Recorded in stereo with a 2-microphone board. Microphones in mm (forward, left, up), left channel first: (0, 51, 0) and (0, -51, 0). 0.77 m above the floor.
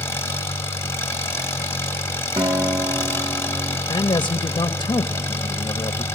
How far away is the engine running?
About 1.5 m.